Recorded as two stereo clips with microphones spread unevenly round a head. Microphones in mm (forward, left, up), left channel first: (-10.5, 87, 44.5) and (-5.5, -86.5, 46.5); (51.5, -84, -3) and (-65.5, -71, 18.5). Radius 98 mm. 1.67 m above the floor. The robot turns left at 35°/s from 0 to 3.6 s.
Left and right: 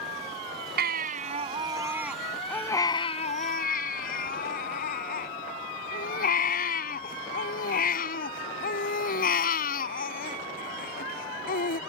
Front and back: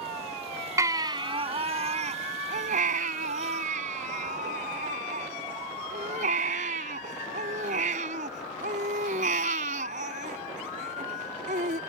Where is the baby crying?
125° right; by 11.8 s 135° left.